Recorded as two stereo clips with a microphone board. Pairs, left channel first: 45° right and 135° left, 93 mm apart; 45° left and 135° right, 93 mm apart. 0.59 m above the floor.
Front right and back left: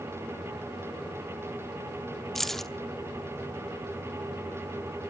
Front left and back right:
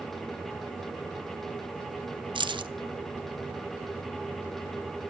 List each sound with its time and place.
2.4 s keys jangling: 130° right, 0.8 m